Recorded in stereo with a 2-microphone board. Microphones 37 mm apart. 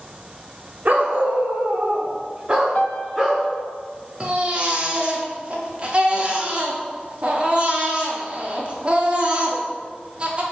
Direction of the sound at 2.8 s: 40° left (ahead or behind).